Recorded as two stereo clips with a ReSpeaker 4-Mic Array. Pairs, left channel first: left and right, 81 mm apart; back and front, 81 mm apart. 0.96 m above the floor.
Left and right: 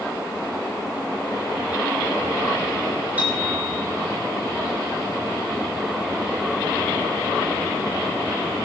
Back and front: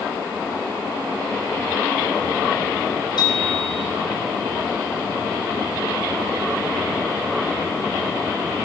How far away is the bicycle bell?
About 7.5 m.